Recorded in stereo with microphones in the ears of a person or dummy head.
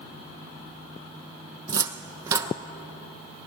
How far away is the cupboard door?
About 0.9 m.